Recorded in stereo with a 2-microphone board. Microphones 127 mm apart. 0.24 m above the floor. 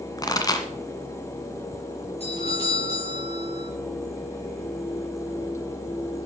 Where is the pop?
30° left (ahead or behind), 1.8 m.